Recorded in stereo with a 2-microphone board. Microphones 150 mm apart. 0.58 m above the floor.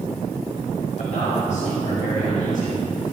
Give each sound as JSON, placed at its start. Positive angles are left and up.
{"t": 1.0, "sound": "a man speaking", "side_deg": 55, "distance_m": 3.0}